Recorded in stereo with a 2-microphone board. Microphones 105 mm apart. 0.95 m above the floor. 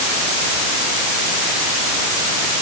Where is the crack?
No crack in this recording.